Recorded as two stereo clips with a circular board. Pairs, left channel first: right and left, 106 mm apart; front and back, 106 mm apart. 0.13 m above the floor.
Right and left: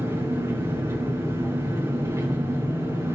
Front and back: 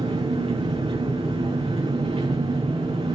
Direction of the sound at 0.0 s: 150° left.